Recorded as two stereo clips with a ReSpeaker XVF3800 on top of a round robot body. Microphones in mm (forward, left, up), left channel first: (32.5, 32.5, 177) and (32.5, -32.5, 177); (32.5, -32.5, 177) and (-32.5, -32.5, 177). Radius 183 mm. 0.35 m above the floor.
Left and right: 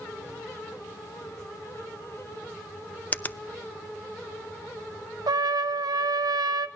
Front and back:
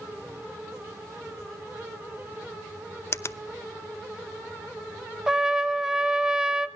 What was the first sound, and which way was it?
A finger snap, 30° left.